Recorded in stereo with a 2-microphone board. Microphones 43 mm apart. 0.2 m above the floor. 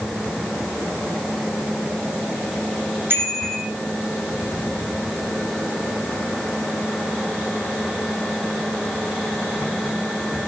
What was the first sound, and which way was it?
A bicycle bell, 60° right (ahead or behind).